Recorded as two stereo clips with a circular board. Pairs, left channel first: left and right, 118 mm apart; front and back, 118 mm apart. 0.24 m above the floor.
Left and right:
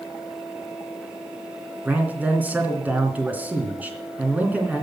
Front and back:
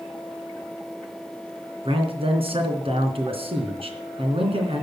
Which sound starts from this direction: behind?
A man speaking, at 1.9 s.